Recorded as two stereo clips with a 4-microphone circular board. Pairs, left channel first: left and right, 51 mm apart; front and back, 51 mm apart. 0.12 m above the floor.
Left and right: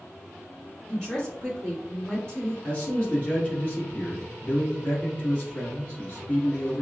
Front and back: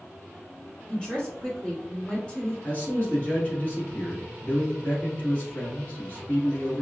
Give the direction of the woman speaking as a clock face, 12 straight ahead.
11 o'clock.